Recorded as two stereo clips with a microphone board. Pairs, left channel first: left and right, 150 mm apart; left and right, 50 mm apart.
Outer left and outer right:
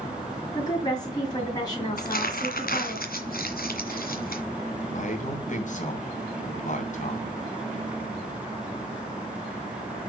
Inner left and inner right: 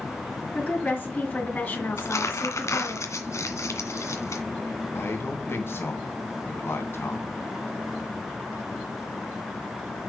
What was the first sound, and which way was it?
A woman speaking, 25° left (ahead or behind).